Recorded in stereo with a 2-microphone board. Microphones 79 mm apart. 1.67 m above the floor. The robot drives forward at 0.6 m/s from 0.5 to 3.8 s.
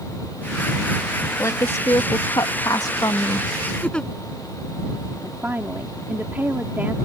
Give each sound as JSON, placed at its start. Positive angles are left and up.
{"t": 1.4, "sound": "a woman speaking", "side_deg": 40}
{"t": 3.8, "sound": "a giggle", "side_deg": 10}
{"t": 5.2, "sound": "a woman speaking", "side_deg": -25}